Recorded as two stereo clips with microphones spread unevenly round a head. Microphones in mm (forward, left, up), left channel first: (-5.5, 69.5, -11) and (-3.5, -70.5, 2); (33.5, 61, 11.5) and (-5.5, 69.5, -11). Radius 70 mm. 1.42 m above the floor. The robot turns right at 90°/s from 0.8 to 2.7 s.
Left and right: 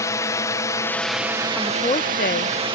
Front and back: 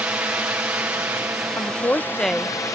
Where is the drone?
150° left; by 2.8 s 40° right.